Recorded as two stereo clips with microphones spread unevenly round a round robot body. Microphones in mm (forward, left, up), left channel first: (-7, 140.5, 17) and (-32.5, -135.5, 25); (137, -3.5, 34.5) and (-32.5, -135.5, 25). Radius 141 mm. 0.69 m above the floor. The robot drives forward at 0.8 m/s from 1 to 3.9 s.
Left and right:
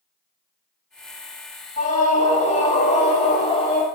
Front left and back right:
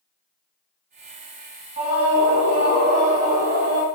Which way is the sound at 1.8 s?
145° left.